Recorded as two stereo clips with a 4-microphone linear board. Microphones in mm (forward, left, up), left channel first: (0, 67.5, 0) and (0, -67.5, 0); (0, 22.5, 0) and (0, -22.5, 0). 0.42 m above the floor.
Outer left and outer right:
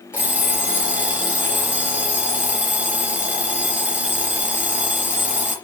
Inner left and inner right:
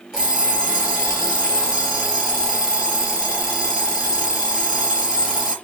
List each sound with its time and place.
0.1 s an alarm clock: 10° right (ahead or behind), 4 m